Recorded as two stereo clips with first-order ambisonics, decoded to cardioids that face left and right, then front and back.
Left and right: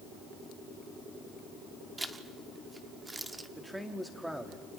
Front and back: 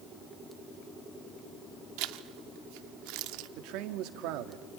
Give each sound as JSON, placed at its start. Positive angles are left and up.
{"t": 2.0, "sound": "a zipper", "azimuth_deg": -170, "distance_m": 0.7}
{"t": 3.6, "sound": "a man speaking", "azimuth_deg": -175, "distance_m": 1.4}